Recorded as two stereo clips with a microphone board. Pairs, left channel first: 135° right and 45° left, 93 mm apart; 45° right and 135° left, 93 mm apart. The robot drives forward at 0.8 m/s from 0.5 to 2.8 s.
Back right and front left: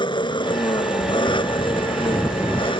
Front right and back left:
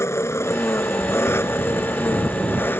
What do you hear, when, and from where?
0.0 s an engine running: 105° right; by 2.8 s 110° right